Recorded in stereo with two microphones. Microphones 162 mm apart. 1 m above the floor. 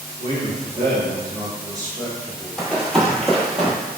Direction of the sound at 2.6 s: 5° left (ahead or behind).